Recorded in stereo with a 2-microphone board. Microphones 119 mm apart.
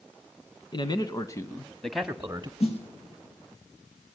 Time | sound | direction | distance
0.7 | a man speaking | 40° left (ahead or behind) | 2 m
2.6 | a snare drum | 60° left (ahead or behind) | 5.5 m